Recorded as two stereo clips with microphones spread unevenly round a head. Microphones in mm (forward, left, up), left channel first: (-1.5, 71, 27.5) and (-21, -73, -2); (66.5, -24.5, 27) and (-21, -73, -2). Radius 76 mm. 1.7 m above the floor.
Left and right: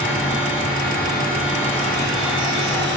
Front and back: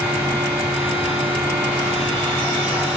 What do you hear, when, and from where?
0.0 s a fan: 135° left, 1.1 m